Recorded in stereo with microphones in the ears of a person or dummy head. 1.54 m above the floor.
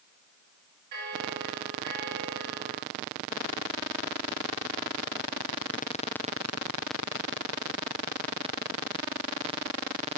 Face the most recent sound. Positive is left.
turn(degrees=-50)  # may be behind; listen again after turning